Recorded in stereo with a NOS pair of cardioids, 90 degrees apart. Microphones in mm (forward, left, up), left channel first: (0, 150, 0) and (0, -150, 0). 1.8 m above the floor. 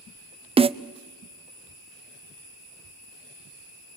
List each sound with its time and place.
0.6 s a snare drum: 20° right, 0.6 m